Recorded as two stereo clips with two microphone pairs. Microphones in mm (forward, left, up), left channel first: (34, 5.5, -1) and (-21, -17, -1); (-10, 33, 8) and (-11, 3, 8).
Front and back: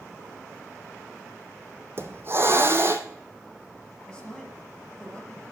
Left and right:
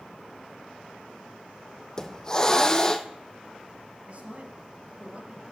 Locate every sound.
2.0 s a hiss: 155° left, 1.0 m
4.1 s a man speaking: 50° right, 3 m